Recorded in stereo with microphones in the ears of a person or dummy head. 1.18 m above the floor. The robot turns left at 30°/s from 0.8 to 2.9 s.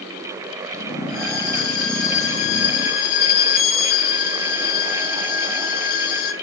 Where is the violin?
105° left, 1.6 m; by 6.3 s 50° left, 1.6 m.